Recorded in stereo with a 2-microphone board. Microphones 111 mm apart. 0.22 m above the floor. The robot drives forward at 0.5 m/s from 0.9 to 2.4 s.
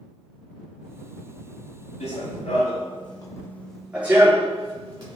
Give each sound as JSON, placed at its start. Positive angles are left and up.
{"t": 2.0, "sound": "running footsteps", "side_deg": 80, "distance_m": 0.9}